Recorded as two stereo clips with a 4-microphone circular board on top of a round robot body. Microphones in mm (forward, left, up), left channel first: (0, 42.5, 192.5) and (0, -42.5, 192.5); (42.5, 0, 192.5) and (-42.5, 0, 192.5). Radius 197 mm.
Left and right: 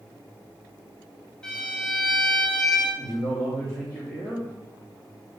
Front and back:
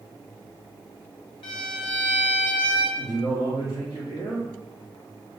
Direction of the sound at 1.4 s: 10° left.